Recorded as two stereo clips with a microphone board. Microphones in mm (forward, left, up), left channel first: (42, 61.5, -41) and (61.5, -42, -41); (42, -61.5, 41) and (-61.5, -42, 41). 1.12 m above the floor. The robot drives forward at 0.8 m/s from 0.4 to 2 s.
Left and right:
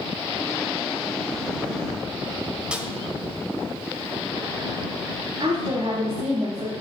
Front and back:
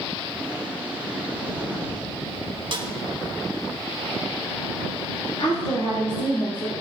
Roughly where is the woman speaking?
Ahead right.